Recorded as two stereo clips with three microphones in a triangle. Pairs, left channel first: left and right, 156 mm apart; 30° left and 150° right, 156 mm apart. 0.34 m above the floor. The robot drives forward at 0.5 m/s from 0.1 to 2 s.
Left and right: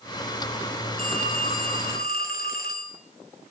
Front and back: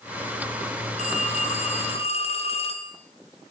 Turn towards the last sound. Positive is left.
turn(degrees=80)